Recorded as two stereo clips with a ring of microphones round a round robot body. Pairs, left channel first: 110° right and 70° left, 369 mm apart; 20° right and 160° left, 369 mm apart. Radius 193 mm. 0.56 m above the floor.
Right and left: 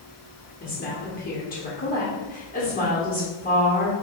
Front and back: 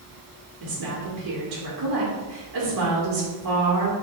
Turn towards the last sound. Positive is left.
turn(degrees=-175)